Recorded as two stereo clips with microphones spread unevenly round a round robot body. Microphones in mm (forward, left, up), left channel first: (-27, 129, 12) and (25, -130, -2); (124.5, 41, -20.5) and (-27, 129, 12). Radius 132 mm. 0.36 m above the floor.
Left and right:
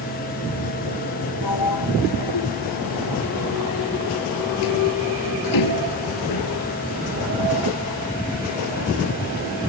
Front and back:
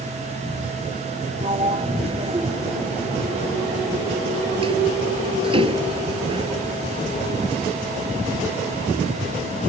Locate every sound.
1.4 s a sliding door: 90° left